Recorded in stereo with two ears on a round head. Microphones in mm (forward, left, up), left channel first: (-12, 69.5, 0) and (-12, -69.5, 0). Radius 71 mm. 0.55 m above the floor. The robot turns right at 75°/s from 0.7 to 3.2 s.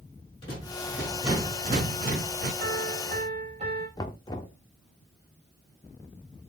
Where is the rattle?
145° left, 7 m; by 2.5 s 80° right, 7 m.